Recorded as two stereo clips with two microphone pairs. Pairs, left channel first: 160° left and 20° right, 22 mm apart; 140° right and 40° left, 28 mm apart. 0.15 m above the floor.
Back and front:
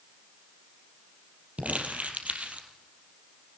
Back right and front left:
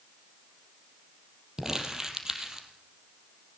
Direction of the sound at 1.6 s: 30° right.